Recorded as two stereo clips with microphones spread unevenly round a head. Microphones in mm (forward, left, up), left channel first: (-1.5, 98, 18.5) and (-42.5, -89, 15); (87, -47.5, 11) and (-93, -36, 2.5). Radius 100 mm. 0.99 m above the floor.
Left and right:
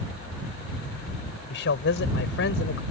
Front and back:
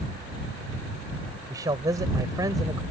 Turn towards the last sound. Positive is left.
turn(degrees=105)